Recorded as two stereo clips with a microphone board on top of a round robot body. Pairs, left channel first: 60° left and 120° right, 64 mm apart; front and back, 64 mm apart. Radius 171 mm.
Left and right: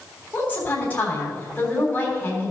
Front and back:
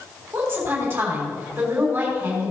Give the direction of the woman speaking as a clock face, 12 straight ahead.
8 o'clock.